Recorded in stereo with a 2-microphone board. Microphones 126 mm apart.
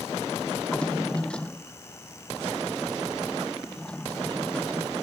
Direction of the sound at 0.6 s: 10° left (ahead or behind).